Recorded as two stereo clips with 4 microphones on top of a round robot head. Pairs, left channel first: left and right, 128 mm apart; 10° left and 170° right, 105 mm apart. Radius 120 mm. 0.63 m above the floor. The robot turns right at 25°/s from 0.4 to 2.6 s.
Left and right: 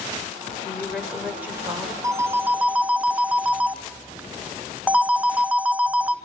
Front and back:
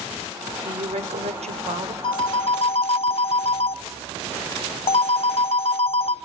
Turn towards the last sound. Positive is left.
turn(degrees=-10)